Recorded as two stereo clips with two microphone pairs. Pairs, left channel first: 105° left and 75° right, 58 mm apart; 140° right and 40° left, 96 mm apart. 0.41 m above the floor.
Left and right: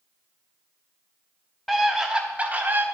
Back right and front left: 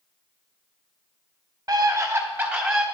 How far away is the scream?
About 1.1 m.